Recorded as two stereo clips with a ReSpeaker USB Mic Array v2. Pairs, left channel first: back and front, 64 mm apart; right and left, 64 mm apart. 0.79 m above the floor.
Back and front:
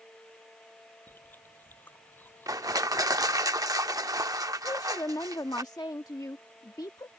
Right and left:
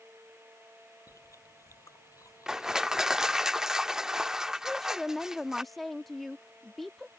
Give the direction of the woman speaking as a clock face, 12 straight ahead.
6 o'clock.